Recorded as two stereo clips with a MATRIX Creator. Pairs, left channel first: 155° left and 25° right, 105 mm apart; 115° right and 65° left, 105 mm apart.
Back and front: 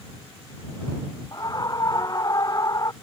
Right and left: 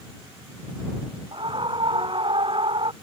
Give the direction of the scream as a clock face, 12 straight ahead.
9 o'clock.